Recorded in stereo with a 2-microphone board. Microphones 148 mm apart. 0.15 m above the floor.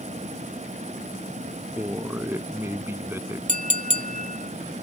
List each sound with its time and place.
1.8 s a man speaking: 15° right (ahead or behind)
3.5 s a clink: 60° right (ahead or behind)